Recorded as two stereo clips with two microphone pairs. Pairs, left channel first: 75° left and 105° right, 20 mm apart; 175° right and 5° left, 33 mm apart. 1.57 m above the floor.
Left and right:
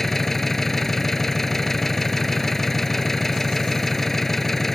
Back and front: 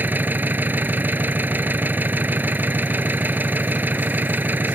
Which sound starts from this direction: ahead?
An engine running, at 0.0 s.